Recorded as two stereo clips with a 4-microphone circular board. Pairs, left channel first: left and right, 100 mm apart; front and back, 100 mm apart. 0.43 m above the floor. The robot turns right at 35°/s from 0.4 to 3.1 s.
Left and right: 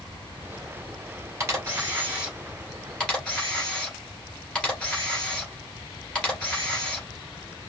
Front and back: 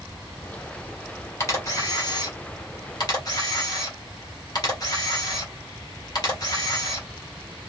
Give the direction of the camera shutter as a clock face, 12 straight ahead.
1 o'clock.